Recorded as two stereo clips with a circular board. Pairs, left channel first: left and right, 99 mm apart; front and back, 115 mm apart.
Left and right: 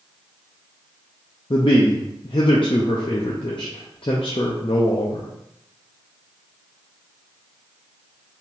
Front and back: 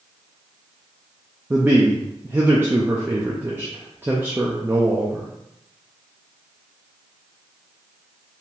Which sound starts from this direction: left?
A man speaking, at 1.5 s.